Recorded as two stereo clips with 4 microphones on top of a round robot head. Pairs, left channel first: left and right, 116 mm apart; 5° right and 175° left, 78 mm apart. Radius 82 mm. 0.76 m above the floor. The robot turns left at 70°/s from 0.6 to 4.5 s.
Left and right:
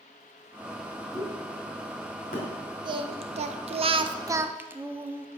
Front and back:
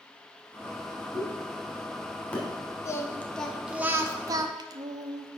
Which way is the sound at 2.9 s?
45° right.